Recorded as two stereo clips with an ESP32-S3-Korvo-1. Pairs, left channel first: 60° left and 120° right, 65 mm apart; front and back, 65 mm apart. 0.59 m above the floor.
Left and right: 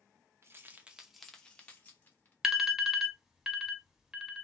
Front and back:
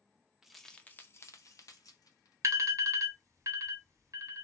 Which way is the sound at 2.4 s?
160° left.